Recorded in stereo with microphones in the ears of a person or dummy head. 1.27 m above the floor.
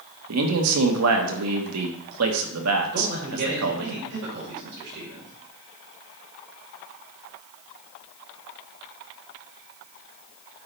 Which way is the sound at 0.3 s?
80° right.